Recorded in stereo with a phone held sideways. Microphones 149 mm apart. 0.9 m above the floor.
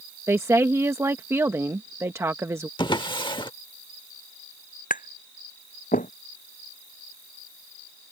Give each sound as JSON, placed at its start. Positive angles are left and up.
{"t": 0.3, "sound": "a woman speaking", "side_deg": -15}
{"t": 2.8, "sound": "a drawer", "side_deg": 30}
{"t": 4.9, "sound": "tapping", "side_deg": 65}